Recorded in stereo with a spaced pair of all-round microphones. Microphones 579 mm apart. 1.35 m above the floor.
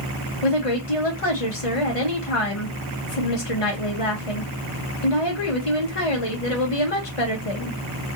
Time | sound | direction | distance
0.4 | a woman speaking | 65° left (ahead or behind) | 1.3 m